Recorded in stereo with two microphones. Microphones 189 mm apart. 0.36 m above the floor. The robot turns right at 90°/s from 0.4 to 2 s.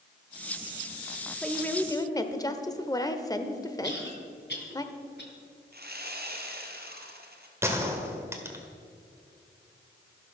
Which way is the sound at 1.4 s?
Centre (ahead or behind).